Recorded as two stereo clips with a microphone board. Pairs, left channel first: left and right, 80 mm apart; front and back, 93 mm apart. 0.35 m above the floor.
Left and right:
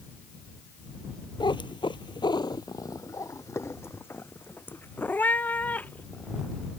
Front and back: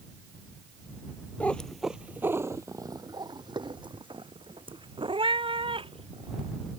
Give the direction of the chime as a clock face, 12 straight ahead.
I don't hear a chime.